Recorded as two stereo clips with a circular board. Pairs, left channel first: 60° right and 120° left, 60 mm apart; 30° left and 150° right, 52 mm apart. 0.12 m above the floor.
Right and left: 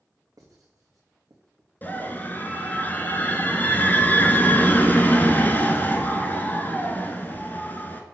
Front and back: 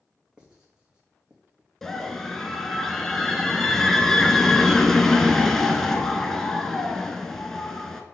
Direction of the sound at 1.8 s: 45° right.